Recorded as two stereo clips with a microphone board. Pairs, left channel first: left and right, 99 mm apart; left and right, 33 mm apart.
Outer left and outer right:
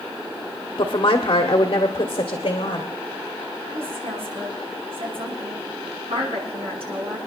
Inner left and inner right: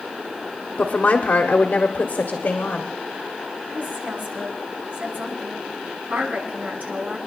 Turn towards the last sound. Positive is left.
turn(degrees=-70)  # may be behind; listen again after turning